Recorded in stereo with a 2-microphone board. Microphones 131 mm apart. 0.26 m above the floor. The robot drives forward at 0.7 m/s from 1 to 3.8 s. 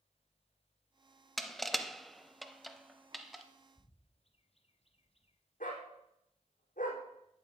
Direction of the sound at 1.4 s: Centre (ahead or behind).